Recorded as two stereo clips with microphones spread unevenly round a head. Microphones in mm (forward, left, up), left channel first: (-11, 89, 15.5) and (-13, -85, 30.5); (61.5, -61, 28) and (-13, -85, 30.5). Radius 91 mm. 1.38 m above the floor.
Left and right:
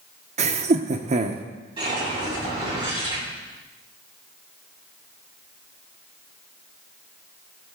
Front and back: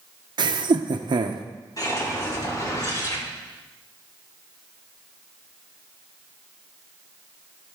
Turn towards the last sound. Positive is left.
turn(degrees=-25)